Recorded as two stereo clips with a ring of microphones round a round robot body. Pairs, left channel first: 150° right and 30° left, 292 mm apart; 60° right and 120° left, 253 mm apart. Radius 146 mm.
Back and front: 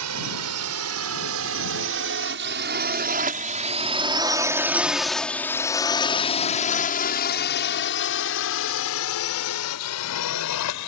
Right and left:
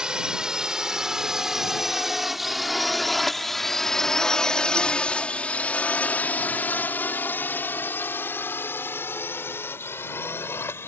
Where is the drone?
35° left; by 10.9 s 140° right.